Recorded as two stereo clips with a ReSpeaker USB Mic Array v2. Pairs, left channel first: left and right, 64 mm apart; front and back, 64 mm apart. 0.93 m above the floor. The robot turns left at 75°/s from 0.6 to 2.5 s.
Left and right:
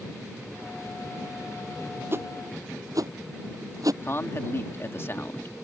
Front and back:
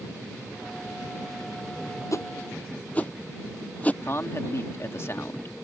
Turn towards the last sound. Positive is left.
turn(degrees=45)